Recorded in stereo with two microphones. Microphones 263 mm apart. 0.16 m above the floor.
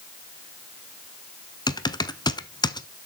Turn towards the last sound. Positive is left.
turn(degrees=15)  # may be behind; listen again after turning